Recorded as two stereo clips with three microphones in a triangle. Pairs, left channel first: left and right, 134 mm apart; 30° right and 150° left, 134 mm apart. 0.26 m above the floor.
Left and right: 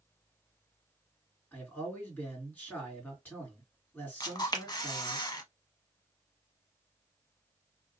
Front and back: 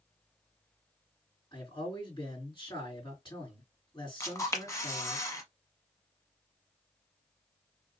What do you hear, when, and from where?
1.5 s a man speaking: 15° left, 2.5 m
4.2 s a camera shutter: 35° left, 0.7 m